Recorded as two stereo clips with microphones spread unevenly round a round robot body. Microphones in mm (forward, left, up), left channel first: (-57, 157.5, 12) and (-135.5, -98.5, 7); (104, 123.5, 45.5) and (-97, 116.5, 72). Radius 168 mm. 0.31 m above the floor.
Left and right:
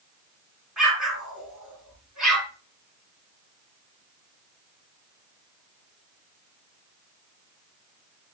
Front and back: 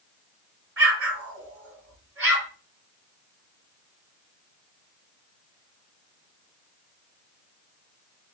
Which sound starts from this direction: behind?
An explosion, at 0.8 s.